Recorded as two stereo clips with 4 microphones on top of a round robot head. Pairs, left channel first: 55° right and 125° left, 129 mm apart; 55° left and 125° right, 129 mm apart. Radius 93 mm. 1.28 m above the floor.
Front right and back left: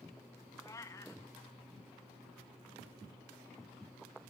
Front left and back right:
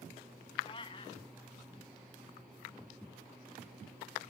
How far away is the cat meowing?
About 0.6 m.